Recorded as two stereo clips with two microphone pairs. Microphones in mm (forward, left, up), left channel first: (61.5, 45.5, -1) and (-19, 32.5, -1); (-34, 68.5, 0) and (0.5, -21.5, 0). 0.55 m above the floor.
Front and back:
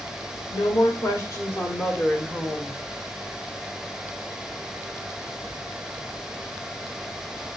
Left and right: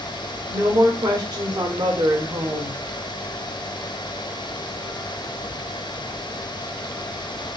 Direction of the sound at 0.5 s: 25° right.